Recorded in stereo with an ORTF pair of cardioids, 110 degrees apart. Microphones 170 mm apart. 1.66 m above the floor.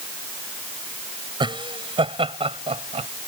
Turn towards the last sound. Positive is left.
turn(degrees=-35)